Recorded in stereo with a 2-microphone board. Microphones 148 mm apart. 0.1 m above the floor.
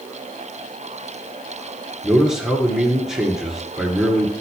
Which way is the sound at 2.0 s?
5° right (ahead or behind).